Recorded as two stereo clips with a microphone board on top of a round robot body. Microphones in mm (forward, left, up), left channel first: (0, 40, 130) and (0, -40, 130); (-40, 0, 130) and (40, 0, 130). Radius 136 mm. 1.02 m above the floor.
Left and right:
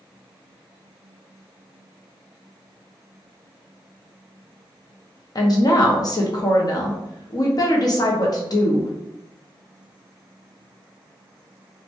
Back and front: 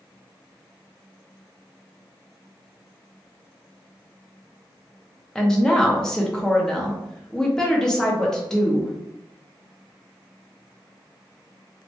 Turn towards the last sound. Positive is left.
turn(degrees=100)